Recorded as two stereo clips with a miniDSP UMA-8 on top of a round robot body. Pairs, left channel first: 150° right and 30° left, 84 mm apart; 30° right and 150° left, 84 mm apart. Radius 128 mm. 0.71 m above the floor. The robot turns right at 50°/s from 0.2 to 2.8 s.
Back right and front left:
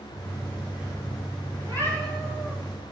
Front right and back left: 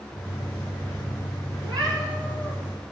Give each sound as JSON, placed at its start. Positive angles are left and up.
{"t": 1.6, "sound": "a cat meowing", "azimuth_deg": 160, "distance_m": 4.5}